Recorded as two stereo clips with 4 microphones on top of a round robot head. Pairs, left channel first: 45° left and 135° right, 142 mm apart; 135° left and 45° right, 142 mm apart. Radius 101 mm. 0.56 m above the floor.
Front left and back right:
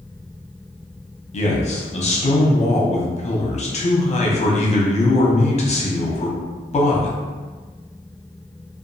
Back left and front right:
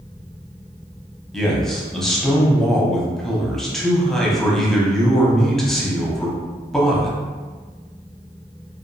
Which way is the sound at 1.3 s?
45° left.